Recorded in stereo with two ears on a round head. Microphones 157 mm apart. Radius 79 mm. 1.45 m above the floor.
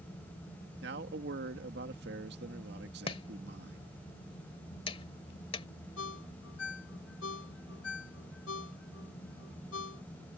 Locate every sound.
0.8 s a man speaking: 70° right (ahead or behind)
3.1 s chopping: 30° left (ahead or behind)
6.0 s a ringtone: 85° left